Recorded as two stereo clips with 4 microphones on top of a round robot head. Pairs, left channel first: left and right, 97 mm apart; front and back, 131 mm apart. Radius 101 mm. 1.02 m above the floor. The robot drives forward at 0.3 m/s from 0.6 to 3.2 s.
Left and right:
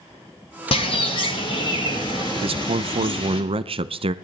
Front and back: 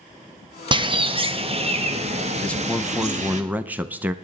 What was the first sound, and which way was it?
A bird, 125° left.